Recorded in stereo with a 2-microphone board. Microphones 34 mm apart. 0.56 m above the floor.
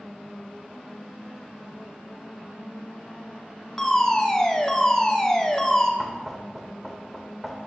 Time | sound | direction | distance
3.8 | a fire alarm | 15° left (ahead or behind) | 1.8 m
6.0 | knocking | centre (ahead or behind) | 1.9 m